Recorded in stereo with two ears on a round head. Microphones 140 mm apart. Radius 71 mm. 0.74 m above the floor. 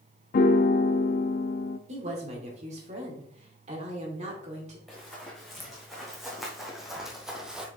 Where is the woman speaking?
45° right (ahead or behind), 2.5 m.